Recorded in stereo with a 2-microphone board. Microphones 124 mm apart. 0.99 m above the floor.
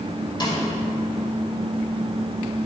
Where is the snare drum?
35° left (ahead or behind), 2 m.